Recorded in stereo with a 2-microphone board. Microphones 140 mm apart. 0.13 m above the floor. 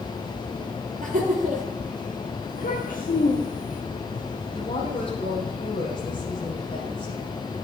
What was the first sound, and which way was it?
Laughter, 60° right (ahead or behind).